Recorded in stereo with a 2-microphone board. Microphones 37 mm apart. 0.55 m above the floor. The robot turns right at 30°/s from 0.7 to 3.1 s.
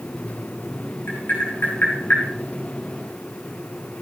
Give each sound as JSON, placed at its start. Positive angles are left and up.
{"t": 1.1, "sound": "tapping", "side_deg": 75, "distance_m": 7.5}